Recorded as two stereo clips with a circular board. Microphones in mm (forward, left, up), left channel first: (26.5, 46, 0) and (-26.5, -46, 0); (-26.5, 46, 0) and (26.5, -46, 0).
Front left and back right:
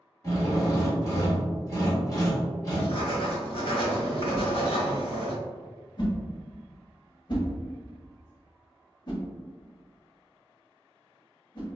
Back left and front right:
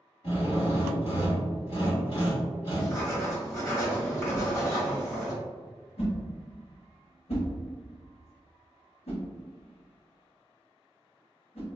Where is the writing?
60° left, 1.3 m.